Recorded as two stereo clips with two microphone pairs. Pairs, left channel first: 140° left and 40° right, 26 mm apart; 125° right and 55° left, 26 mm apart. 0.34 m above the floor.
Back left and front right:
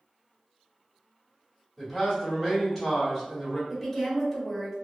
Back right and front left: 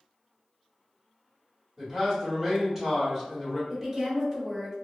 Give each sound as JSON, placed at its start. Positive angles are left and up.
{"t": 1.8, "sound": "a man speaking", "azimuth_deg": 85, "distance_m": 1.1}
{"t": 3.7, "sound": "a woman speaking", "azimuth_deg": 60, "distance_m": 0.8}